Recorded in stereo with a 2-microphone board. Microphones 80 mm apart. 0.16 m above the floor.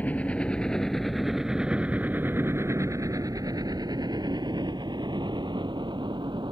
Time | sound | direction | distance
0.0 | a helicopter | 20° left (ahead or behind) | ?